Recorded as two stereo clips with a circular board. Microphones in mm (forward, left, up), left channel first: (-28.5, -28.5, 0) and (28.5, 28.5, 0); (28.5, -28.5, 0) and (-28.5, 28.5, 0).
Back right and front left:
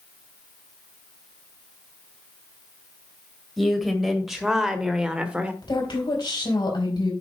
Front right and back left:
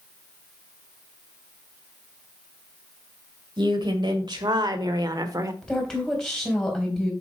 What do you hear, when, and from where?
3.6 s a woman speaking: 135° left, 2 m; by 5.5 s 115° left, 1.1 m
5.6 s a woman speaking: 130° right, 3.5 m